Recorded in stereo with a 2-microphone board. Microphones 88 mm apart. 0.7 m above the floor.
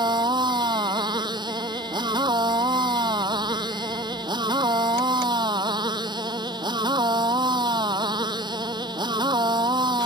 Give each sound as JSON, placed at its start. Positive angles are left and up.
{"t": 0.0, "sound": "a motorcycle", "side_deg": -55}